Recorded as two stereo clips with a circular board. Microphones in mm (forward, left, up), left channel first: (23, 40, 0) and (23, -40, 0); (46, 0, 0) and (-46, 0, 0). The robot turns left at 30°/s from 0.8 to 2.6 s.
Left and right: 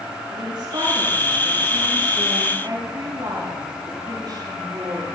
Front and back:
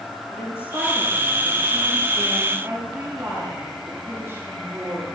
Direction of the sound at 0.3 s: 60° right.